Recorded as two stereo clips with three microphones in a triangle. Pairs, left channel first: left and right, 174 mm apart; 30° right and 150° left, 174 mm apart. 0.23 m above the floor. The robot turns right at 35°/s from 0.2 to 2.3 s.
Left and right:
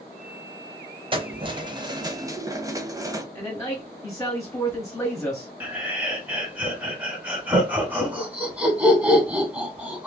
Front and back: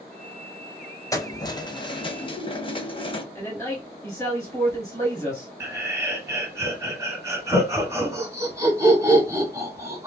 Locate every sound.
1.1 s keys jangling: 80° right, 0.7 m; by 3.2 s 40° right, 0.7 m
3.4 s a man speaking: 30° left, 1.9 m
5.6 s laughter: 160° right, 1.6 m